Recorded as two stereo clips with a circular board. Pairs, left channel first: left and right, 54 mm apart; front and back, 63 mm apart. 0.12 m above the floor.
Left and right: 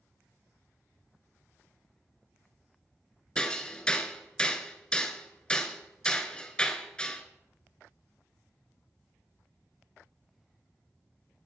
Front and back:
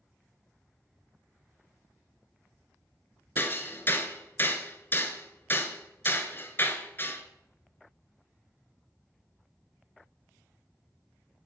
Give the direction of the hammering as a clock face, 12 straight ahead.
11 o'clock.